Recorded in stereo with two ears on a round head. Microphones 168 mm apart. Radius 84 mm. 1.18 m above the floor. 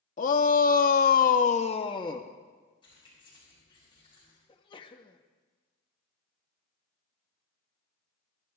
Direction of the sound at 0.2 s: 45° left (ahead or behind).